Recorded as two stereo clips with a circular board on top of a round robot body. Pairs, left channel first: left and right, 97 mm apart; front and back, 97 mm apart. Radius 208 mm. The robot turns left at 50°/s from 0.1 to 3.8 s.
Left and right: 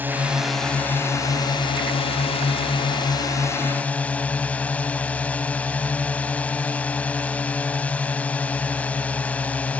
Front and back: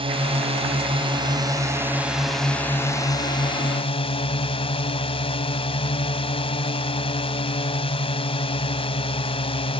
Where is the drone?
160° right; by 9.8 s 15° left.